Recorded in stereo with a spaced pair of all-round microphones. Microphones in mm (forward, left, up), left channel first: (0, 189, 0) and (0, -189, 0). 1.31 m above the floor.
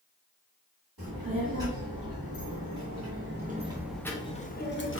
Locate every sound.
1.0 s a child speaking: 70° right (ahead or behind), 1.7 m; by 5.0 s 35° left (ahead or behind), 1.1 m